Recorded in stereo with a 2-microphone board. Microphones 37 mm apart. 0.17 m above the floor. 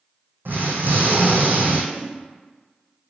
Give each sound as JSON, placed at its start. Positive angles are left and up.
{"t": 0.5, "sound": "an explosion", "side_deg": -75, "distance_m": 1.4}
{"t": 1.9, "sound": "a whoosh", "side_deg": 55, "distance_m": 1.5}